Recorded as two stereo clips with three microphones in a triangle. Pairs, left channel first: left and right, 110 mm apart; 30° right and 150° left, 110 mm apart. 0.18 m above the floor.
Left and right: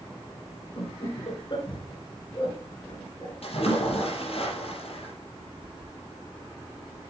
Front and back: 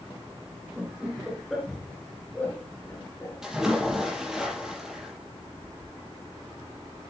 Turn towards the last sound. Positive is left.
turn(degrees=65)